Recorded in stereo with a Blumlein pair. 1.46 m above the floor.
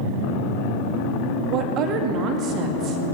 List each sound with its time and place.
1.5 s a woman speaking: 35° right, 2 m